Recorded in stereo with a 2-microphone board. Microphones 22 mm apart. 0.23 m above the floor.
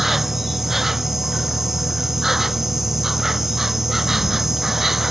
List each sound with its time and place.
0.0 s an insect: 15° right (ahead or behind)